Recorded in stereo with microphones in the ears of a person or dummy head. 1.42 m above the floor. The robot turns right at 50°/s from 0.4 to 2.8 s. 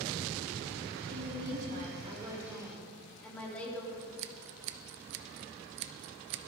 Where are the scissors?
60° right (ahead or behind), 0.5 m.